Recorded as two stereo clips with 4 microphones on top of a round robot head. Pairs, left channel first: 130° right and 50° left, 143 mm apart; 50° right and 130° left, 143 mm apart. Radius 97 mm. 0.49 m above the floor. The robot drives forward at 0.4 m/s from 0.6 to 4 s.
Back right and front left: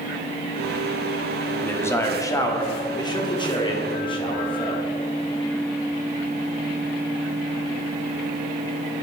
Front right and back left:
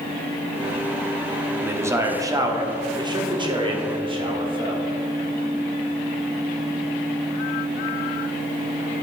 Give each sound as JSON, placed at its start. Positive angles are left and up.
{"t": 1.6, "sound": "a man speaking", "azimuth_deg": 180, "distance_m": 1.1}